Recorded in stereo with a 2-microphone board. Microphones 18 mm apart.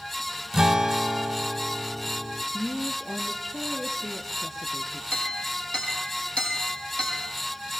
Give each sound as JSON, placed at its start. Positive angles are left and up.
{"t": 0.5, "sound": "a guitar", "side_deg": -35, "distance_m": 0.7}
{"t": 2.5, "sound": "a woman speaking", "side_deg": 10, "distance_m": 6.0}
{"t": 5.1, "sound": "a clink", "side_deg": 80, "distance_m": 6.5}